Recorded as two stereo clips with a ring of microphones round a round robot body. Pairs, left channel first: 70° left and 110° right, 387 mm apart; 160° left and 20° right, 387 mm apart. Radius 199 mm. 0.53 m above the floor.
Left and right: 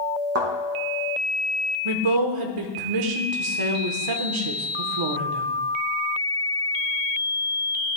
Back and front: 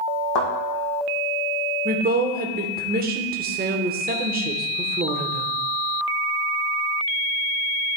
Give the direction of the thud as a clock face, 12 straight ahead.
6 o'clock.